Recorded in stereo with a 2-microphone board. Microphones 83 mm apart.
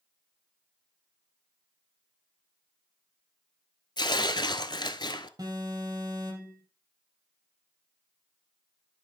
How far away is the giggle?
I don't hear a giggle.